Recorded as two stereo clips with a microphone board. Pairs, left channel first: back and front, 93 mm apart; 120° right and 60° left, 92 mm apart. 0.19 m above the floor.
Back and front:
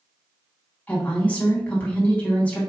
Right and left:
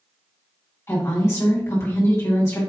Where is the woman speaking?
125° right, 1.6 m.